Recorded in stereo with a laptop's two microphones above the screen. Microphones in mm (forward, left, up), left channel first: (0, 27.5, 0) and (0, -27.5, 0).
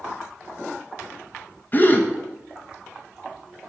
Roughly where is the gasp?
Left.